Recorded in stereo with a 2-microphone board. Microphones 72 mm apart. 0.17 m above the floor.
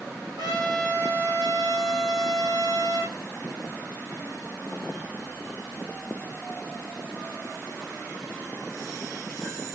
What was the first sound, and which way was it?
A trumpet, 80° right.